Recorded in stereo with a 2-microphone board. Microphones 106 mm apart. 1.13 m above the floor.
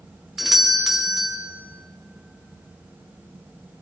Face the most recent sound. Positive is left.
turn(degrees=-5)  # may be behind; listen again after turning